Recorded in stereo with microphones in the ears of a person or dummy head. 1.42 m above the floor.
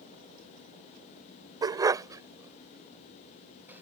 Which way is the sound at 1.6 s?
20° right (ahead or behind).